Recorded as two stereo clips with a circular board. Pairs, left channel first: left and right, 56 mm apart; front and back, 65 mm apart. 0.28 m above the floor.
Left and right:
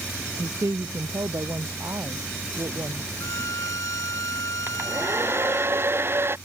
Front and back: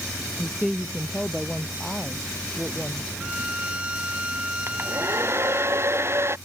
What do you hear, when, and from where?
0.4 s a woman speaking: 95° right
3.2 s a violin: 110° left
4.7 s a hair dryer: 130° right